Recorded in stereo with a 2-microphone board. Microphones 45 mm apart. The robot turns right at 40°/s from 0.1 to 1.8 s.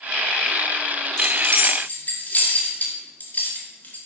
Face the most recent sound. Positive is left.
turn(degrees=40)  # may be behind; listen again after turning